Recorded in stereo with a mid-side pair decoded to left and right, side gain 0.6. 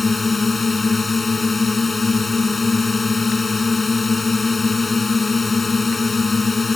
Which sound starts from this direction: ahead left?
A drone, at 0.0 s.